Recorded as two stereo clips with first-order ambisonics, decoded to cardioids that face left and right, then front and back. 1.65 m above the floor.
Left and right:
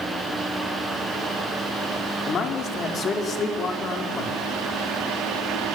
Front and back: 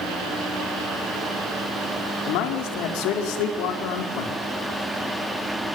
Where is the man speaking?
25° left, 5 m.